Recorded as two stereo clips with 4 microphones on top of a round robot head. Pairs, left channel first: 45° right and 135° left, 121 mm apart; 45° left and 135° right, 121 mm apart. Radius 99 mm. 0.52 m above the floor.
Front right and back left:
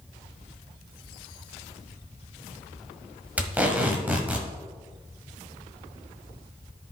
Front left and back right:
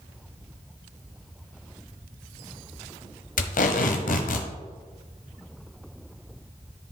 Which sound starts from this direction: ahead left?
Tape being pulled, at 3.4 s.